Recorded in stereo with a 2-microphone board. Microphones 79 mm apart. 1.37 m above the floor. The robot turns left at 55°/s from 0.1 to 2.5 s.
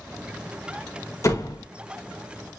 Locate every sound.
1.2 s a door slam: 40° left (ahead or behind), 1.0 m; by 1.6 s 55° left (ahead or behind), 1.0 m